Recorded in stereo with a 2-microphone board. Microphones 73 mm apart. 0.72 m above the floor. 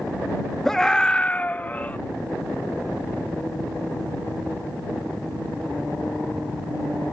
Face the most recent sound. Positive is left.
turn(degrees=20)  # may be behind; listen again after turning